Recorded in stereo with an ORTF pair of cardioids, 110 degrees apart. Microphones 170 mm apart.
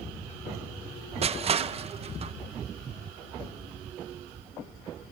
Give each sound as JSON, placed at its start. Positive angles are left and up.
{"t": 1.2, "sound": "crushing", "azimuth_deg": -35, "distance_m": 0.7}